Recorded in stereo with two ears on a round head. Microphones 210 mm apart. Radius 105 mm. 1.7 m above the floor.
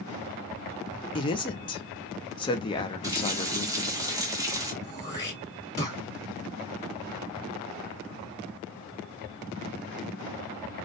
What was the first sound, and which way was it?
A man speaking, 20° left (ahead or behind).